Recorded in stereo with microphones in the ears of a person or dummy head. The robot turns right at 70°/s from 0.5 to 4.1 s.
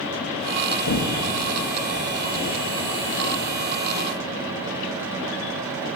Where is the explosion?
110° left, 3.5 m; by 3.7 s 50° right, 3.5 m.